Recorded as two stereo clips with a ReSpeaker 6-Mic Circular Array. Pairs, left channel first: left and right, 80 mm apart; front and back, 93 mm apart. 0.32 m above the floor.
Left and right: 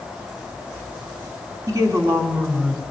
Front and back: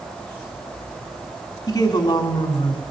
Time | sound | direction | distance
1.7 | a woman speaking | 50° right | 3 m